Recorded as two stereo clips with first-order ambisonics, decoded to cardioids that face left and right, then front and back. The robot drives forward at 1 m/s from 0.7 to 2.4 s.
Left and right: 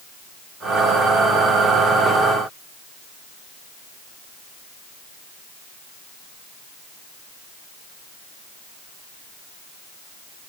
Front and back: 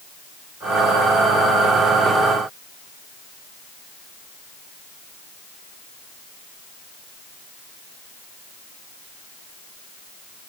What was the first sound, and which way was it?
Only background noise.